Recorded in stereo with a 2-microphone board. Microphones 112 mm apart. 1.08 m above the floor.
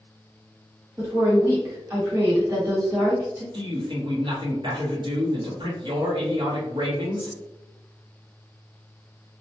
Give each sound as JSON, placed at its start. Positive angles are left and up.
{"t": 1.0, "sound": "a woman speaking", "side_deg": -25, "distance_m": 1.5}
{"t": 3.5, "sound": "a man speaking", "side_deg": -45, "distance_m": 0.9}